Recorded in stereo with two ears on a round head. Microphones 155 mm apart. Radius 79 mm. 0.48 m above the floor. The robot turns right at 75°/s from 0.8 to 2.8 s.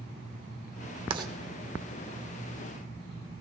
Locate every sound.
1.1 s writing: 30° right (ahead or behind), 0.9 m; by 1.3 s 20° right (ahead or behind), 0.9 m